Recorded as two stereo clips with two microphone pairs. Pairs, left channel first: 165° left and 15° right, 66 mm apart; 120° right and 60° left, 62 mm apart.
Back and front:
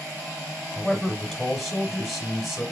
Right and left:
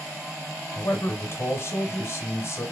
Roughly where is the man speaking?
Right.